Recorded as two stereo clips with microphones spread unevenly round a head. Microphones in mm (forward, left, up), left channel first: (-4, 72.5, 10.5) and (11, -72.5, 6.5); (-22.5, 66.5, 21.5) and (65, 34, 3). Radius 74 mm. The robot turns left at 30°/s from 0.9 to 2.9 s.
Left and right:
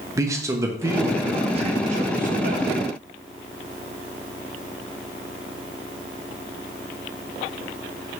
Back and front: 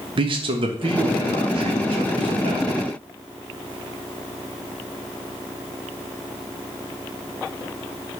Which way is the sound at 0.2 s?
15° right.